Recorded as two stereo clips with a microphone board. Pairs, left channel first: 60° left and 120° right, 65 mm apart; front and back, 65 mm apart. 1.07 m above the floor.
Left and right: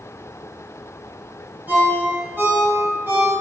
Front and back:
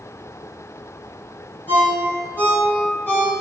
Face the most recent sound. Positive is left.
turn(degrees=-55)